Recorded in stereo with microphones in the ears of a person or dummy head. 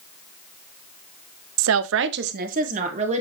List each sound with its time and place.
1.6 s a woman speaking: 75° right (ahead or behind), 0.7 m; by 3.2 s 35° right (ahead or behind), 2 m